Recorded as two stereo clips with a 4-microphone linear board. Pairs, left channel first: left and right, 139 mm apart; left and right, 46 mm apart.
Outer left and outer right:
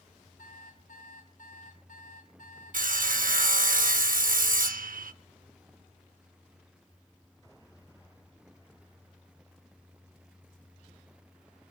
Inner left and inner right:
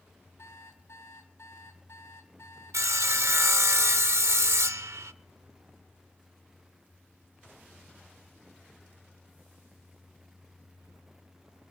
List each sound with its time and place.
0.4 s an alarm clock: 80° left, 2.5 m
2.7 s sawing: 90° right, 0.6 m